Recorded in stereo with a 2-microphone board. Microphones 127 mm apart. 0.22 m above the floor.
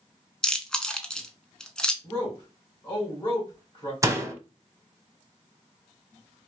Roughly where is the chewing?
Centre.